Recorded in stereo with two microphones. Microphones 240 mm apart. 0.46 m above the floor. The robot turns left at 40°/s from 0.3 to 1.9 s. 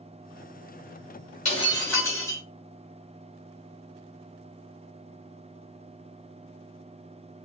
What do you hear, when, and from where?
1.4 s breaking glass: 30° left (ahead or behind), 3.5 m; by 2.4 s 10° left (ahead or behind), 3.5 m